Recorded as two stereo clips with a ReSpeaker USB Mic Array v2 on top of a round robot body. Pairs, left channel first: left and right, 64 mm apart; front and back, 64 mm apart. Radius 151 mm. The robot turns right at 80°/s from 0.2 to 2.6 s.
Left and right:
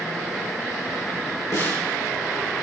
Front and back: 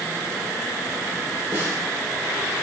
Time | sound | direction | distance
1.5 | a snare drum | 130° left | 6 m